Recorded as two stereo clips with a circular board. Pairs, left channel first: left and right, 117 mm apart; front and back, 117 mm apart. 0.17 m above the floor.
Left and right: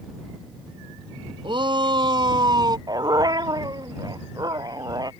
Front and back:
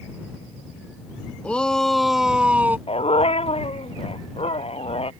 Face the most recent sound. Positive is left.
turn(degrees=-35)